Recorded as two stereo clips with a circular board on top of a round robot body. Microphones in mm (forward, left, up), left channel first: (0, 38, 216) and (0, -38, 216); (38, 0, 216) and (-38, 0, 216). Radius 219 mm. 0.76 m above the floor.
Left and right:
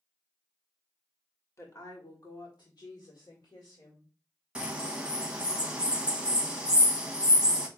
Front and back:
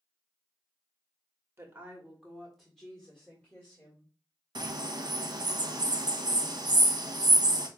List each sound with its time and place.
1.6 s a woman speaking: 130° left, 1.3 m; by 4.1 s 65° left, 2.5 m
4.5 s a bird: 170° right, 0.9 m